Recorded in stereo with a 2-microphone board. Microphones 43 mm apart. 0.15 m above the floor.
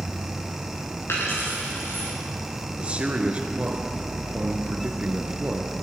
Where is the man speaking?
30° right (ahead or behind), 1.8 m.